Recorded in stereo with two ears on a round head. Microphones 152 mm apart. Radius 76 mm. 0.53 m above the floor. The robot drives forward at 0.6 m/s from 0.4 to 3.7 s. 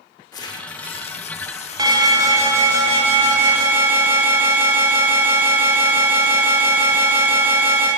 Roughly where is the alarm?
Right.